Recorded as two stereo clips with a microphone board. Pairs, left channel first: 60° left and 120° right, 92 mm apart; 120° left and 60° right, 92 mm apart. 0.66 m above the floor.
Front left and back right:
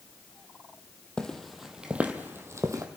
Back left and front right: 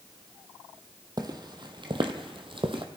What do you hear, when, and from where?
1.2 s footsteps: 20° right, 1.4 m; by 2.9 s 70° right, 1.5 m